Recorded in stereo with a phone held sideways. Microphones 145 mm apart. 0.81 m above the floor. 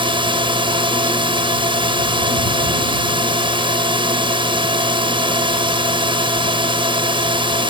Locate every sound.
0.0 s a drone: 35° right (ahead or behind)